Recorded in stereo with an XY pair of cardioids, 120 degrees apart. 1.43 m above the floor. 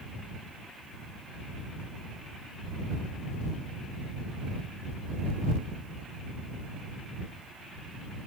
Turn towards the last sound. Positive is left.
No sound to turn to.